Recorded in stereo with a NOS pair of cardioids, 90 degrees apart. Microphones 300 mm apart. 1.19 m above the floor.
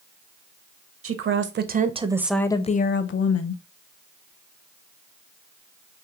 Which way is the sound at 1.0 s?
50° right.